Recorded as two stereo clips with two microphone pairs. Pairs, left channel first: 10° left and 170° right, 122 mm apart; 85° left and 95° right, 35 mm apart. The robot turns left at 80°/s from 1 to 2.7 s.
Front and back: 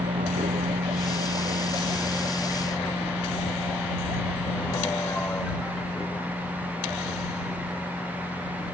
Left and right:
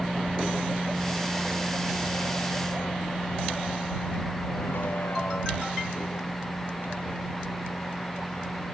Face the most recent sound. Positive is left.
turn(degrees=85)